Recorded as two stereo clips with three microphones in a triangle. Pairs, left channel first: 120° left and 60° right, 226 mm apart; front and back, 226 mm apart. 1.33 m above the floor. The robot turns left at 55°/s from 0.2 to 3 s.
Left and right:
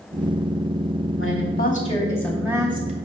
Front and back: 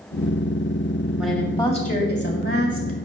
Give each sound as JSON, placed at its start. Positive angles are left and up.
{"t": 1.2, "sound": "a woman speaking", "azimuth_deg": 95, "distance_m": 2.0}